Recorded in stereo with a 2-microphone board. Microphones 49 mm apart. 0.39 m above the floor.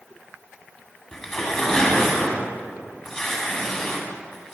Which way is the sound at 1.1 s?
10° left (ahead or behind).